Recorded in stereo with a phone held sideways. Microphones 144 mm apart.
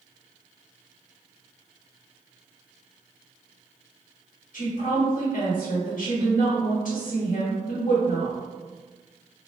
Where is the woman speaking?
65° left (ahead or behind), 1.1 m.